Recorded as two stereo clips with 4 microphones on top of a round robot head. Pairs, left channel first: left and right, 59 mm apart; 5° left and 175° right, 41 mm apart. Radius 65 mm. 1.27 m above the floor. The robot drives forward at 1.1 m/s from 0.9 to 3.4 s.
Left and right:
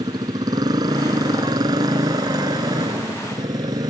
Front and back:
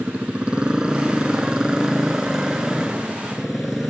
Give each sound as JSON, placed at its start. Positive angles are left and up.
{"t": 0.0, "sound": "a motorcycle", "azimuth_deg": -105}